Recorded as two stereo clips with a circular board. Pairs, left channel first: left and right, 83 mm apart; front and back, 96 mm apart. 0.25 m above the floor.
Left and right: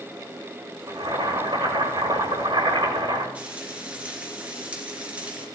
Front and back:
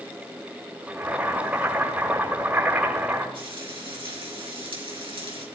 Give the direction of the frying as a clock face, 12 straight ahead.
5 o'clock.